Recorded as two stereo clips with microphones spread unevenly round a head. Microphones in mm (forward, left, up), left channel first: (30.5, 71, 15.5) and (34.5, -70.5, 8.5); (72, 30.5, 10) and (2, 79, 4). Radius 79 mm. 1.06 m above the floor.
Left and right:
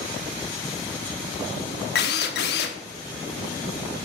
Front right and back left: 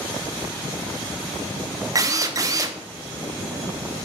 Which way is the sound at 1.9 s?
95° left.